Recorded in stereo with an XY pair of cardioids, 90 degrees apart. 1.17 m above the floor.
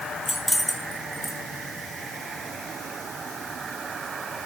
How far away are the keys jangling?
About 5 m.